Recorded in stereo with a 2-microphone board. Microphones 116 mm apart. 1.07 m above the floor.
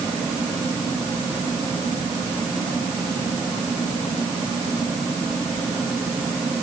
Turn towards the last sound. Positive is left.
No sound to turn to.